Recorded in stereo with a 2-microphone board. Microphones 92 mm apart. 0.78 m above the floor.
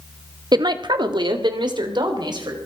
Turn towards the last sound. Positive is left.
turn(degrees=-60)  # may be behind; listen again after turning